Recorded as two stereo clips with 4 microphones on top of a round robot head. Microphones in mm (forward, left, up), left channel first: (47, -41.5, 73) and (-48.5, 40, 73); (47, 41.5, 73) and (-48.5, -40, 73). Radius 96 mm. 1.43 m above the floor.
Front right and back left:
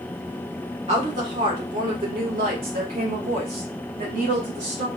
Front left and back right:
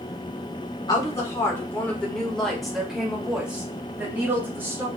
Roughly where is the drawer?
No drawer in this recording.